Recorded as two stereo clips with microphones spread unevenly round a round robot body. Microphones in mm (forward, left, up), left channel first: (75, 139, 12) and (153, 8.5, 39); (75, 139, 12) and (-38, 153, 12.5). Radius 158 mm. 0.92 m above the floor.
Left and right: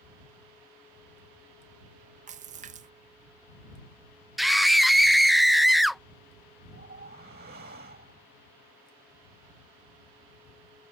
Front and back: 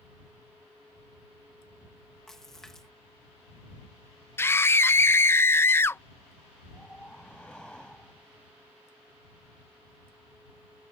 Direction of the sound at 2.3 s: 90° right.